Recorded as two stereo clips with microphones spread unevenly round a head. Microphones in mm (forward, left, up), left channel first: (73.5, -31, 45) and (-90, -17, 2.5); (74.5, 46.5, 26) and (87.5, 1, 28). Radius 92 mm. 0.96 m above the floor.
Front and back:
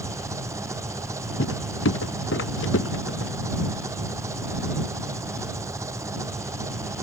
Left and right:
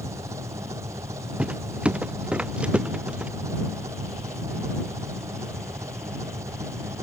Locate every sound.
0.0 s an engine running: 110° right
1.4 s footsteps: 10° right